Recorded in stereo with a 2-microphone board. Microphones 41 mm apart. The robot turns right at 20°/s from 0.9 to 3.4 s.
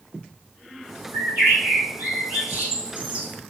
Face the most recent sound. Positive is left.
turn(degrees=-30)